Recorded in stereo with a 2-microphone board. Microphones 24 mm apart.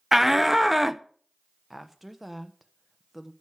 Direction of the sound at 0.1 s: 10° right (ahead or behind).